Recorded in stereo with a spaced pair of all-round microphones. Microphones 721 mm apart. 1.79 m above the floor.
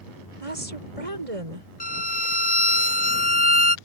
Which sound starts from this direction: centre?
A violin, at 1.8 s.